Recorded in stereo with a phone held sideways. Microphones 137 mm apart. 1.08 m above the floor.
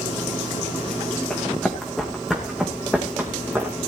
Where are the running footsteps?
5° left (ahead or behind), 4.5 m; by 3.8 s 20° right (ahead or behind), 4 m.